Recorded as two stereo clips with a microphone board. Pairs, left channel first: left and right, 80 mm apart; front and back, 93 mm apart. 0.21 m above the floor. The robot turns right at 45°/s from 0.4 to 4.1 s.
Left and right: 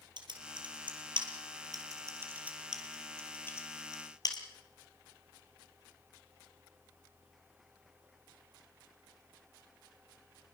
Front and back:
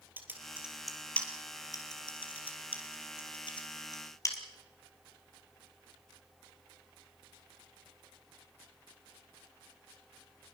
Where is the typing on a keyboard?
110° right, 3 m; by 4.4 s 55° left, 3 m.